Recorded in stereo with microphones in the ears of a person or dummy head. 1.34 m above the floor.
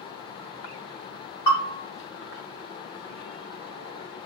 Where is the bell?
25° left (ahead or behind), 1.9 m.